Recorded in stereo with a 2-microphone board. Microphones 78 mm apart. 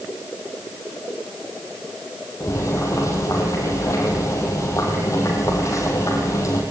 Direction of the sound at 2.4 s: 40° left (ahead or behind).